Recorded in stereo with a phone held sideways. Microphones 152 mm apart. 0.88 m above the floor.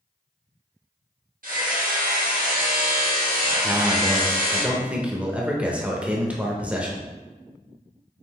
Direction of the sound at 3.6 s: 10° right (ahead or behind).